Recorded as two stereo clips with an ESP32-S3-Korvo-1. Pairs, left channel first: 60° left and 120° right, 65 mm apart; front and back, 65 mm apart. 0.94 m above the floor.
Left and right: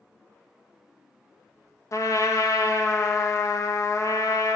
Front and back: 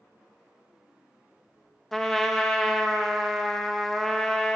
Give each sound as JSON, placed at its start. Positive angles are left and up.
{"t": 1.9, "sound": "a trumpet", "azimuth_deg": 85, "distance_m": 0.5}